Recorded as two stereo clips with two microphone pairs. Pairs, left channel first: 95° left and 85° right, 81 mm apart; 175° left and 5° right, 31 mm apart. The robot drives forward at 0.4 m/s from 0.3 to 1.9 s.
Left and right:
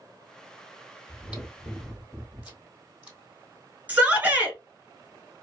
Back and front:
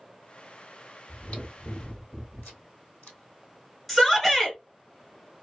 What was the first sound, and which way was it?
Chewing, 155° right.